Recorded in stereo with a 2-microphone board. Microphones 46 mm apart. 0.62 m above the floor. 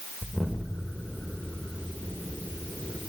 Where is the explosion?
15° left (ahead or behind), 1.5 m.